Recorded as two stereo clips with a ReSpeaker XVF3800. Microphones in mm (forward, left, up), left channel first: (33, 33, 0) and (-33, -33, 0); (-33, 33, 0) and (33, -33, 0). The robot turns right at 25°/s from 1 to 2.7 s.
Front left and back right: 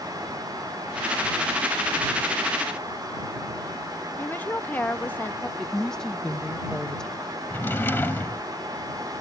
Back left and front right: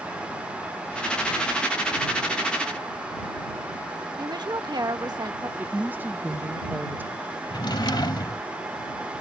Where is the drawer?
110° left.